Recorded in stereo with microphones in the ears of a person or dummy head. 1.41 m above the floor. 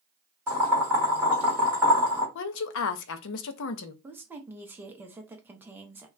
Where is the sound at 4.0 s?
10° right (ahead or behind), 0.5 m.